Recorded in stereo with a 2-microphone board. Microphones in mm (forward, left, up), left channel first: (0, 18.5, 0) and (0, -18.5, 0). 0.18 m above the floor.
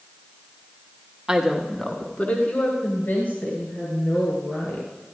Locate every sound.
1.3 s a woman speaking: 20° right (ahead or behind), 1.3 m; by 4.9 s 70° left (ahead or behind), 5 m